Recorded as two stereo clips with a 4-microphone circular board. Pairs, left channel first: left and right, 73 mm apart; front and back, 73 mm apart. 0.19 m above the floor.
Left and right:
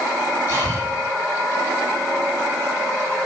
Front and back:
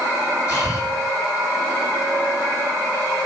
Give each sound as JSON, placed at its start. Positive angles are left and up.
{"t": 0.5, "sound": "breathing", "azimuth_deg": -50, "distance_m": 9.5}